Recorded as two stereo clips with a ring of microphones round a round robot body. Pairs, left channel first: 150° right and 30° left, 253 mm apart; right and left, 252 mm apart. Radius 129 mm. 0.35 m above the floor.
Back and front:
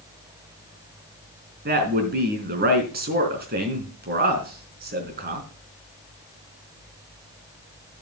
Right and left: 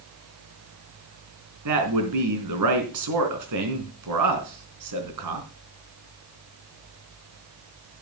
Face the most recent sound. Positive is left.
turn(degrees=85)